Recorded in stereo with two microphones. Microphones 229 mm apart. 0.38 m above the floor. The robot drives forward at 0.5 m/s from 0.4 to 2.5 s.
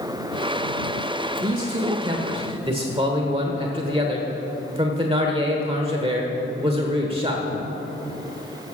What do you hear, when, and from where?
1.4 s a man speaking: 20° right (ahead or behind), 1.5 m; by 7.4 s 25° right (ahead or behind), 1.3 m